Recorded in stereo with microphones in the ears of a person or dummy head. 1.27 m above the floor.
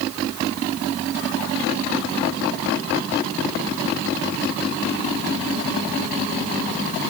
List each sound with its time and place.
Only background noise.